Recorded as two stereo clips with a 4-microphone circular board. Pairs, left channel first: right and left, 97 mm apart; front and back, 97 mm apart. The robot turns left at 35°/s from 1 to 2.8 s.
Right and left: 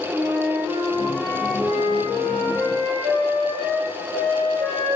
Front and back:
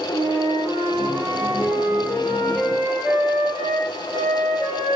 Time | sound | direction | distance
0.1 | a flute | 150° left | 4 m